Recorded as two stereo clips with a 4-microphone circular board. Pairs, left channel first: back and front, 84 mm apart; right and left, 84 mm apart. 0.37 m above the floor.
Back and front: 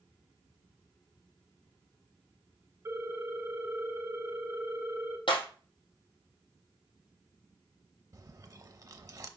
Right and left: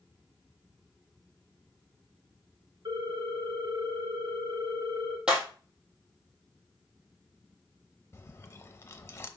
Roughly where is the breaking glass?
Behind.